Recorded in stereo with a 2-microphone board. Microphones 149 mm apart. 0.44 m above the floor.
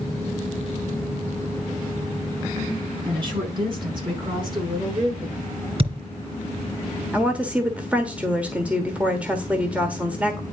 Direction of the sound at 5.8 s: 40° right (ahead or behind).